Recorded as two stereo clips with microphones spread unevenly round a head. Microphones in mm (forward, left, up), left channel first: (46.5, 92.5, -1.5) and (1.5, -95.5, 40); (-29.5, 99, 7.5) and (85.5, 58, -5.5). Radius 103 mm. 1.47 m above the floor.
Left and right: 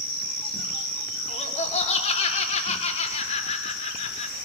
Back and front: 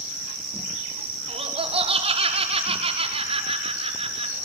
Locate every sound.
1.3 s laughter: 20° left, 6 m